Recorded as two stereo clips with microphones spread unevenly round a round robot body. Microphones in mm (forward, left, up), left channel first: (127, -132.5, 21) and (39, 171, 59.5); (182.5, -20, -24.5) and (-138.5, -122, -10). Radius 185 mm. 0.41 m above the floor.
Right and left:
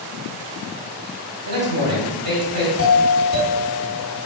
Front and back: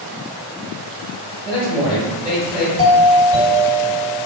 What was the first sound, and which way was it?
A man speaking, 110° left.